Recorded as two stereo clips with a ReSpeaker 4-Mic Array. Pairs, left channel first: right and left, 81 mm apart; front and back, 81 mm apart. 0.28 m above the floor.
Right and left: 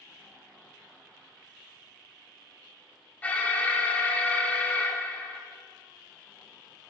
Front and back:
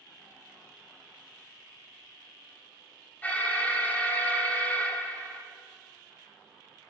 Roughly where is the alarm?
Ahead right.